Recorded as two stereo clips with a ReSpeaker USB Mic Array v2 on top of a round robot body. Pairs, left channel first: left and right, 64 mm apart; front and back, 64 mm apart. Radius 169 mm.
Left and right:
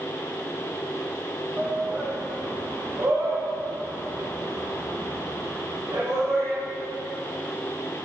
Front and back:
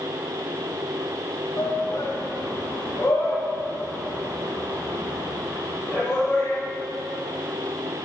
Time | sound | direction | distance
1.6 | a shout | 20° right | 1.4 m